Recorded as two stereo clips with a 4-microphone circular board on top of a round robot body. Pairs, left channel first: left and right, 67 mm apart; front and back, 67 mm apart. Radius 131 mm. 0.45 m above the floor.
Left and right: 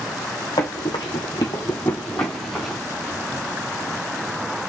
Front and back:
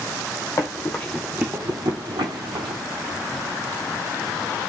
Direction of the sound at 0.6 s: 50° left.